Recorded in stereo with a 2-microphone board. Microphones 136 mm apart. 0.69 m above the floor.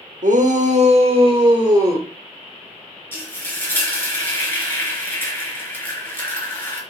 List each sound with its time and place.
0.2 s a shout: 75° right (ahead or behind), 2 m; by 2.1 s 25° right (ahead or behind), 2.5 m
3.1 s frying: 15° left (ahead or behind), 4 m